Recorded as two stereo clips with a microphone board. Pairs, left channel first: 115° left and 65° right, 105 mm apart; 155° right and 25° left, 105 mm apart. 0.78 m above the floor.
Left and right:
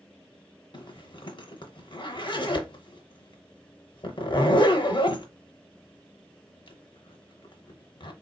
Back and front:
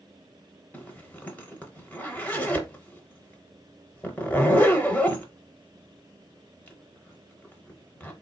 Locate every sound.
0.7 s a zipper: 130° left, 0.7 m